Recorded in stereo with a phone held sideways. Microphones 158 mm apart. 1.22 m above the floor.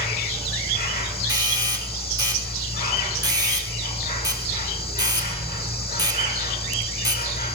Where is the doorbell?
25° right (ahead or behind), 5.5 m.